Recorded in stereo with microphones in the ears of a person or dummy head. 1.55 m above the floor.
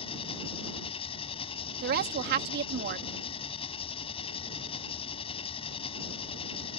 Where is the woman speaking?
55° right (ahead or behind).